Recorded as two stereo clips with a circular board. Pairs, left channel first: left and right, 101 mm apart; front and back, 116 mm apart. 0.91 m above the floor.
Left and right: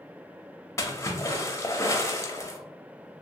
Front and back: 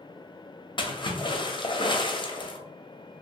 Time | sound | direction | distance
0.8 | a splash | 35° left | 0.5 m